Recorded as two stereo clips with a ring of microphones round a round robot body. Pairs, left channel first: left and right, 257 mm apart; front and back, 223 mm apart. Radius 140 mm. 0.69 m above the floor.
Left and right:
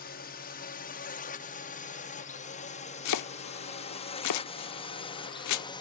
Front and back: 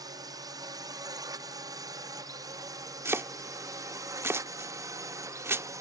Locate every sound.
0.0 s a drone: 115° left; by 5.8 s 130° left
3.0 s chopping: 100° left